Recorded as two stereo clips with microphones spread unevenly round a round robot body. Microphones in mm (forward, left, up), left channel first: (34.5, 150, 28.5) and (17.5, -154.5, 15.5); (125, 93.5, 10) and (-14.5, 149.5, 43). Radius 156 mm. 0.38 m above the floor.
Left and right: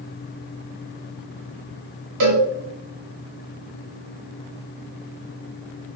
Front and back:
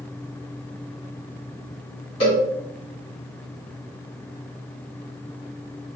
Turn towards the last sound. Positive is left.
turn(degrees=-75)